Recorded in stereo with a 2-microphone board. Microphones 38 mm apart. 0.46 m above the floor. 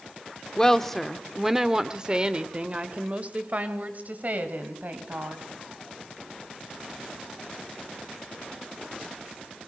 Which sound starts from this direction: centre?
A woman speaking, at 0.6 s.